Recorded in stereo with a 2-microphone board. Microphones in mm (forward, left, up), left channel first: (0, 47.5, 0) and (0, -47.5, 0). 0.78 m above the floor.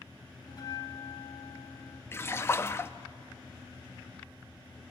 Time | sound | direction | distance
0.5 | a bell | 45° left (ahead or behind) | 0.8 m
2.1 | a splash | 25° left (ahead or behind) | 0.6 m